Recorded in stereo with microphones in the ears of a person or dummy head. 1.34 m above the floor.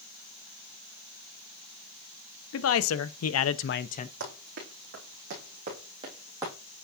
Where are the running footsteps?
55° right (ahead or behind), 4.5 m; by 6.5 s 20° right (ahead or behind), 3.5 m.